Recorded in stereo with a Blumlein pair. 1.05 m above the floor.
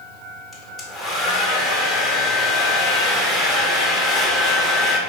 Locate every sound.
0.5 s a hair dryer: 10° left, 0.5 m